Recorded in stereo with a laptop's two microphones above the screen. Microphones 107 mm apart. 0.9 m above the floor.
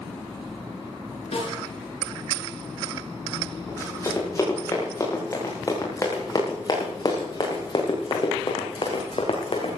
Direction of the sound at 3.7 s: 25° left (ahead or behind).